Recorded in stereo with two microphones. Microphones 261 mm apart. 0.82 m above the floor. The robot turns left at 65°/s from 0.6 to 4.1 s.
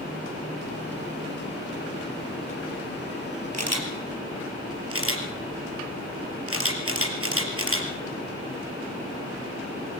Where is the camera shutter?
80° right, 4 m; by 7.9 s 55° right (ahead or behind), 4 m.